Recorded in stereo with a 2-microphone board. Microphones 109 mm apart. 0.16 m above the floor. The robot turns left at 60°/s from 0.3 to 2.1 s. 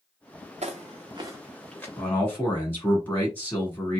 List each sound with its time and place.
0.6 s footsteps: 75° right (ahead or behind), 0.6 m; by 1.9 s 15° left (ahead or behind), 1.1 m
2.0 s a man speaking: 15° left (ahead or behind), 1.5 m